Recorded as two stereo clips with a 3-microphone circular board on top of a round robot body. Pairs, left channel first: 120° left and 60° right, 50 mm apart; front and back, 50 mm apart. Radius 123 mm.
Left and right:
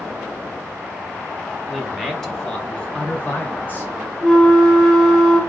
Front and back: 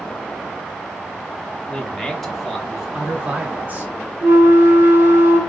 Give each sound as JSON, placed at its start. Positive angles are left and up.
{"t": 1.7, "sound": "a man speaking", "azimuth_deg": 20, "distance_m": 1.1}
{"t": 4.2, "sound": "a flute", "azimuth_deg": -160, "distance_m": 1.5}